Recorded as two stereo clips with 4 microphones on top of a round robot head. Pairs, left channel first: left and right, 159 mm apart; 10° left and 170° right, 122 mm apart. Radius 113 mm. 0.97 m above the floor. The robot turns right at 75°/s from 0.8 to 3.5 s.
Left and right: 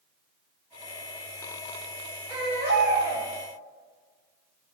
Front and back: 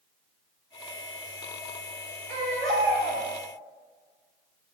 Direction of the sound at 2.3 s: 160° right.